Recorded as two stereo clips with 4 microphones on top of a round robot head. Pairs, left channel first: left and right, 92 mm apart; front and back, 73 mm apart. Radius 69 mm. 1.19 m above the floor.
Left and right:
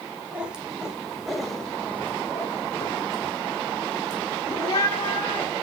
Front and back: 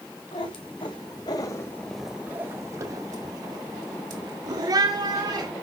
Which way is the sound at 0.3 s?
10° right.